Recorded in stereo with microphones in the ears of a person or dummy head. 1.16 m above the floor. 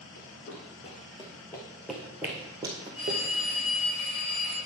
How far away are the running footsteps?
About 2.5 m.